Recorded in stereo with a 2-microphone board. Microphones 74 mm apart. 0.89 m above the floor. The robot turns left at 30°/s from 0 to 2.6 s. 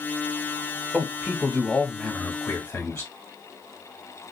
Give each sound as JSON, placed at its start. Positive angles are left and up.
{"t": 0.9, "sound": "a man speaking", "azimuth_deg": -170, "distance_m": 1.3}